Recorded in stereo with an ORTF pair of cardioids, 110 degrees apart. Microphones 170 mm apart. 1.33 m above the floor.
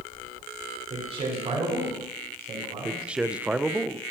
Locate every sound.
0.9 s a man speaking: 35° right, 5.5 m
2.9 s a man speaking: 5° right, 0.5 m